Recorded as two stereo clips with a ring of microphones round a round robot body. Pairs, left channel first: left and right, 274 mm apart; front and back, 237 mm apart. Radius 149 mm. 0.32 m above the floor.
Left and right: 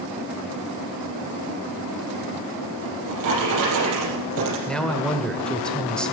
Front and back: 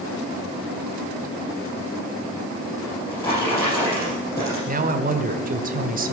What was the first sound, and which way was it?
A drawer, 80° right.